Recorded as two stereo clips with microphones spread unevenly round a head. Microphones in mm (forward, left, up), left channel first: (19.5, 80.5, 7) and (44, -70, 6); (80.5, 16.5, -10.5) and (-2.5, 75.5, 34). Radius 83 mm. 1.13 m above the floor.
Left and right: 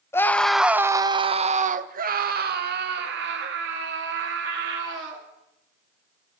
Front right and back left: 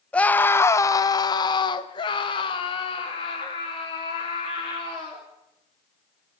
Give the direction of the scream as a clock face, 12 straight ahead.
11 o'clock.